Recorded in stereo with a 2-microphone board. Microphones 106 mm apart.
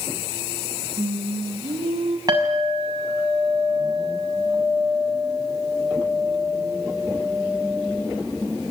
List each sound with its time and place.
1.0 s singing: 65° right (ahead or behind), 2.5 m
2.3 s a clink: 35° right (ahead or behind), 6.5 m